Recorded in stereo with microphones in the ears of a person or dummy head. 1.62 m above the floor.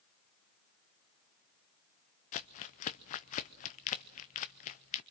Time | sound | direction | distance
2.3 | crumpling | 40° left (ahead or behind) | 0.6 m